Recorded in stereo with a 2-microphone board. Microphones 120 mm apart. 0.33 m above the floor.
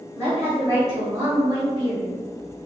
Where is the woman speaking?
20° right (ahead or behind), 1.6 m; by 2.1 s 35° right (ahead or behind), 1.7 m.